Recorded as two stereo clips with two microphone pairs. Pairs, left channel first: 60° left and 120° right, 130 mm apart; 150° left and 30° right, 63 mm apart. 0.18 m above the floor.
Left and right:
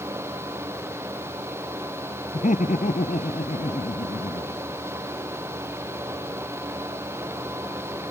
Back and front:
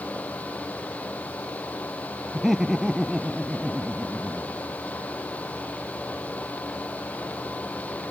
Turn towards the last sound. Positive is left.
turn(degrees=55)